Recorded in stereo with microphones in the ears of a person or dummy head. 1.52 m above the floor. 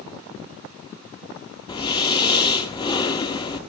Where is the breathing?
25° left (ahead or behind), 1.7 m.